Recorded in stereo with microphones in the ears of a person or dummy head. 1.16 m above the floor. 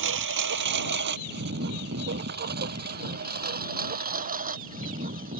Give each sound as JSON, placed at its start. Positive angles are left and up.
{"t": 0.0, "sound": "a lawn mower", "side_deg": -65}